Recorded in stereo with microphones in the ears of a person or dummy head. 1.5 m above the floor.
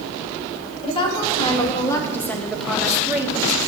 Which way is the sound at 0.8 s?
30° left (ahead or behind).